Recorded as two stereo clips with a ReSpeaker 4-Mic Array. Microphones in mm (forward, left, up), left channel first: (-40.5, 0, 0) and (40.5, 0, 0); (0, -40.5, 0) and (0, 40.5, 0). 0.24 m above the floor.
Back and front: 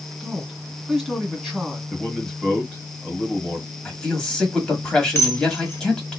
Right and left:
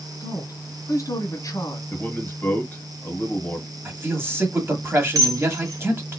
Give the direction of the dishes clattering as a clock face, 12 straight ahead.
8 o'clock.